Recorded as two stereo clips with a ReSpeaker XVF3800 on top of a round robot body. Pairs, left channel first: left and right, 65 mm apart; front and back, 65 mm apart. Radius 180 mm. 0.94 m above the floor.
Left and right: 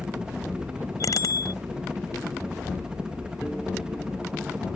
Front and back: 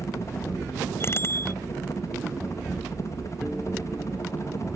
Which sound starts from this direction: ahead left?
A bicycle bell, at 1.0 s.